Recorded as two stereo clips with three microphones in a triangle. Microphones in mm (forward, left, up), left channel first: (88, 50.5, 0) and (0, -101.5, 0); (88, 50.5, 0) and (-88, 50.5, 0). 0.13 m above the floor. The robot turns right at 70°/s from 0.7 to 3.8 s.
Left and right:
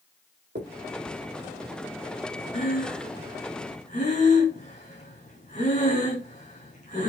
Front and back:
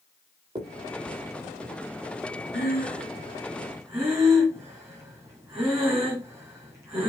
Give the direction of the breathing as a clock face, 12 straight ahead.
11 o'clock.